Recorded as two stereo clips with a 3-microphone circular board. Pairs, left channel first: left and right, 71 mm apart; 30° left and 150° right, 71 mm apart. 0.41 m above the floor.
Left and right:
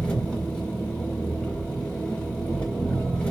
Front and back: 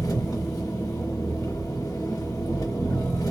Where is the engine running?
15° left, 0.9 m.